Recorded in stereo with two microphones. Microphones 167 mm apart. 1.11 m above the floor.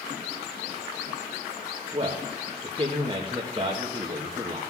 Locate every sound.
1.9 s a man speaking: 30° right (ahead or behind), 1.3 m